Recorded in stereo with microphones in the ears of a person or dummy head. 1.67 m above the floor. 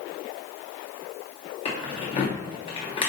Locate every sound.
1.6 s keys jangling: 30° left (ahead or behind), 0.6 m